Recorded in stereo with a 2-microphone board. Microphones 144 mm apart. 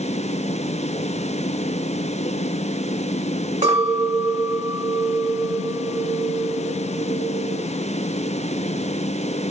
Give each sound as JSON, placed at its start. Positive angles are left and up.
{"t": 3.6, "sound": "a clink", "side_deg": -60, "distance_m": 1.6}